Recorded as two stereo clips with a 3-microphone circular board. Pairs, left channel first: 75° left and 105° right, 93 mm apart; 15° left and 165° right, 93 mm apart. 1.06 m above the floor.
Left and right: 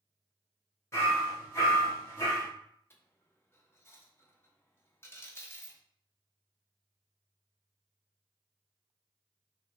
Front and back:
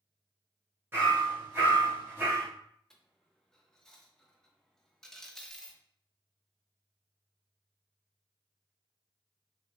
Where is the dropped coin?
95° left, 0.5 m.